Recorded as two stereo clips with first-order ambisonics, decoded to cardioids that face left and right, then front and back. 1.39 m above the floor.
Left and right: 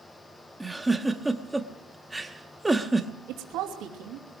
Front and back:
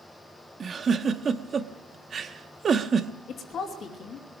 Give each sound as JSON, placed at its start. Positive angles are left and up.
{"t": 0.6, "sound": "a giggle", "azimuth_deg": -165, "distance_m": 0.8}
{"t": 3.3, "sound": "a woman speaking", "azimuth_deg": -55, "distance_m": 2.5}